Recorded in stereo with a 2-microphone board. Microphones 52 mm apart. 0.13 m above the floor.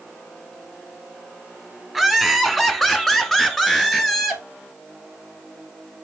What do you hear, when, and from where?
1.9 s laughter: 5° left (ahead or behind), 1.1 m